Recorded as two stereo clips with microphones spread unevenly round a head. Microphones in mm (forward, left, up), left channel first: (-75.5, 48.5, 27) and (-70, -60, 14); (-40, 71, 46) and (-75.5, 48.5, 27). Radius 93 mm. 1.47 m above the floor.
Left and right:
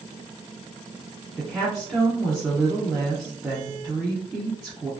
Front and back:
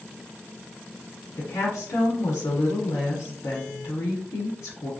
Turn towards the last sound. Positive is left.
turn(degrees=5)